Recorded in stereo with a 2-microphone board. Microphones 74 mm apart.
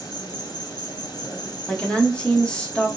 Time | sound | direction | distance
0.0 | an insect | 80° left | 1.5 m
1.7 | a woman speaking | 15° left (ahead or behind) | 0.9 m